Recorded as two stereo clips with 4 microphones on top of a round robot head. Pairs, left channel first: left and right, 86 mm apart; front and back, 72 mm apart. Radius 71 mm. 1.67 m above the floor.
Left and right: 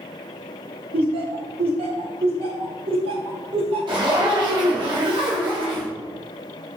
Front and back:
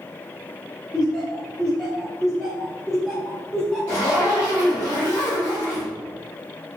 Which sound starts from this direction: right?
Laughter, at 0.9 s.